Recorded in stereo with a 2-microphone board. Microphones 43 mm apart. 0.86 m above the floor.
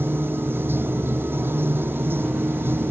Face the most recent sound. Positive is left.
turn(degrees=-60)  # may be behind; listen again after turning